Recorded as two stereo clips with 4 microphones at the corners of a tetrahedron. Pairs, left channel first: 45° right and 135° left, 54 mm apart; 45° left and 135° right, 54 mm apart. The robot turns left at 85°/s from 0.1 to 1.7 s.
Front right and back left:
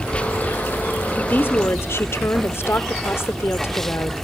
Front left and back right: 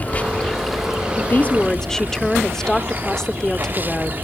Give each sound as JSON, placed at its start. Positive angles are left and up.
{"t": 0.0, "sound": "running water", "azimuth_deg": 15, "distance_m": 1.0}
{"t": 1.2, "sound": "a woman speaking", "azimuth_deg": 15, "distance_m": 1.2}